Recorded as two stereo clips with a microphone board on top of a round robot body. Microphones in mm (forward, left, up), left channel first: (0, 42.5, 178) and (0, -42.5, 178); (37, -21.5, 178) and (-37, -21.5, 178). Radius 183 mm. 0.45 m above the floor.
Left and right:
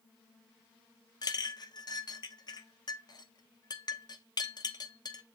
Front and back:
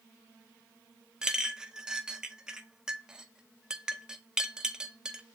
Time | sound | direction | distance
1.2 | a clink | 105° left | 0.6 m